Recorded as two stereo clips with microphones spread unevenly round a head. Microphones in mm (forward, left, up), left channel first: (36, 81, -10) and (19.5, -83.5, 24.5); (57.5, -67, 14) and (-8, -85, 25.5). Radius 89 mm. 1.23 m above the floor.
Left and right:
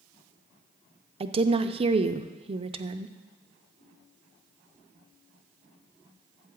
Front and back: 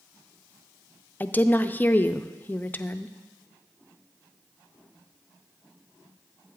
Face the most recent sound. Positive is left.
turn(degrees=-35)